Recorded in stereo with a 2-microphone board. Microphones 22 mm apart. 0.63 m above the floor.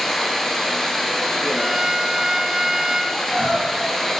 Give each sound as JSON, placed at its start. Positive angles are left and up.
{"t": 0.0, "sound": "running water", "side_deg": 10, "distance_m": 2.0}
{"t": 1.6, "sound": "a violin", "side_deg": -25, "distance_m": 0.8}
{"t": 3.1, "sound": "crying", "side_deg": 45, "distance_m": 4.5}